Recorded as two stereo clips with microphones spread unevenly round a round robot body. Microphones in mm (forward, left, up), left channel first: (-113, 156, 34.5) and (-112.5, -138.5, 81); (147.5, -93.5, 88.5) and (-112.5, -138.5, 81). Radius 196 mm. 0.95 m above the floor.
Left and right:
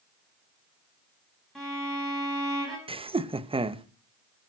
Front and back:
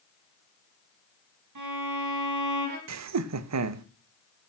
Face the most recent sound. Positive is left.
turn(degrees=-165)